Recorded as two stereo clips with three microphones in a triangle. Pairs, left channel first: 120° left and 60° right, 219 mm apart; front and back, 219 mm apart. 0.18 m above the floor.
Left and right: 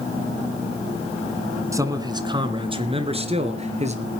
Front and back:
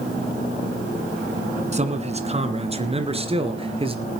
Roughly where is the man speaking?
Behind right.